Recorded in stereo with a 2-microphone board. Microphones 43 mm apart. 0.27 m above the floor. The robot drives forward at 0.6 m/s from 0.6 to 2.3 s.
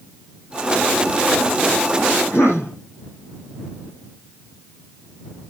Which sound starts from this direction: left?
A cough, at 2.3 s.